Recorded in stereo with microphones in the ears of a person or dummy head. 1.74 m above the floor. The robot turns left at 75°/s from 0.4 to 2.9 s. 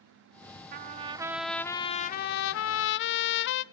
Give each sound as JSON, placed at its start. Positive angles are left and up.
{"t": 0.7, "sound": "a trumpet", "azimuth_deg": -125, "distance_m": 0.7}